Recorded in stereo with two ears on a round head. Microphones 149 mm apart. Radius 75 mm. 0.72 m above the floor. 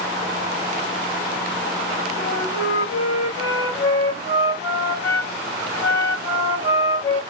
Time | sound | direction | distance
2.2 | a flute | 70° left (ahead or behind) | 1.9 m